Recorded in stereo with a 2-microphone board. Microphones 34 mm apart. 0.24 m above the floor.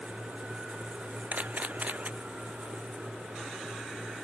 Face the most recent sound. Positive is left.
turn(degrees=-50)  # may be behind; listen again after turning